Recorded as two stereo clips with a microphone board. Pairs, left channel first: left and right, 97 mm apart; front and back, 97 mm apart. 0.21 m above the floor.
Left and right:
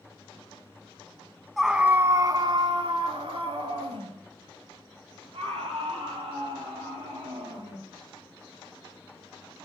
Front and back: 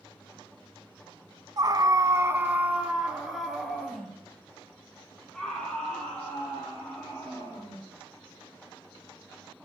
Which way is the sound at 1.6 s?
Straight behind.